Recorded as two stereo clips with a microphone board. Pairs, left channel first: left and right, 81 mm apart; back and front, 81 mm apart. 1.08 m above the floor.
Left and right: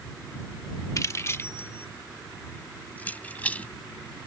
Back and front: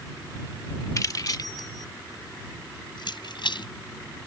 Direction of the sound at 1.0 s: 135° left.